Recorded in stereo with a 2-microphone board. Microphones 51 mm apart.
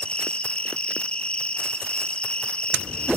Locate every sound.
0.0 s an insect: 20° left (ahead or behind), 1.4 m